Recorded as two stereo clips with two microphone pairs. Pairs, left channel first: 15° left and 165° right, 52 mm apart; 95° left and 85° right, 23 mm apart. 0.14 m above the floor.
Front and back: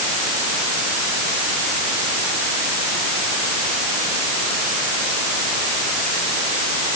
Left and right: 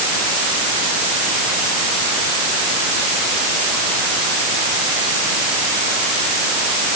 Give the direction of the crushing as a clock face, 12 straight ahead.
I don't hear crushing.